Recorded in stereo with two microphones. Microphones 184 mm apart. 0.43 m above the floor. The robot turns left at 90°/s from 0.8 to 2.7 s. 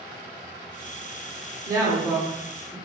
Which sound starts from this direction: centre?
A woman speaking, at 1.7 s.